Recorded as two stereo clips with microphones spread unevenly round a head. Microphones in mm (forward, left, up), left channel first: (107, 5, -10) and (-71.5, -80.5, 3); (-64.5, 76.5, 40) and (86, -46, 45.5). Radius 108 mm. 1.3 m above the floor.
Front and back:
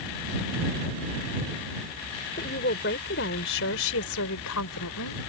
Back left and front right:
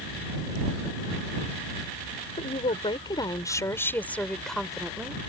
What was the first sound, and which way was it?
A woman speaking, 80° left.